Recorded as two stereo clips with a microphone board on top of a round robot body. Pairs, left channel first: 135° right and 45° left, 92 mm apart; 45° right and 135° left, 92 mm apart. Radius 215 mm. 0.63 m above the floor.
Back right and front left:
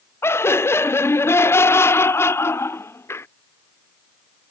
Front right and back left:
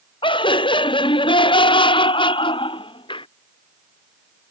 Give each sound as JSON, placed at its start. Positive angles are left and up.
{"t": 0.2, "sound": "laughter", "azimuth_deg": -70}